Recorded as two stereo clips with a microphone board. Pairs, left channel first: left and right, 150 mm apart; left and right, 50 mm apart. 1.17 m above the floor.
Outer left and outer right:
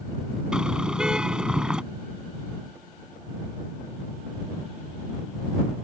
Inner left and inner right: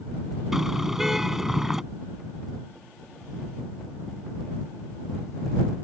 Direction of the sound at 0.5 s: 5° right (ahead or behind).